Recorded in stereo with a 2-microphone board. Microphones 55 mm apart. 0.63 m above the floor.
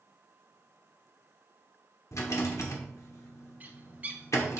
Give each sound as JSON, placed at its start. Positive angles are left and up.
{"t": 2.1, "sound": "a rattle", "side_deg": 65, "distance_m": 1.2}
{"t": 3.6, "sound": "a bird", "side_deg": -30, "distance_m": 0.7}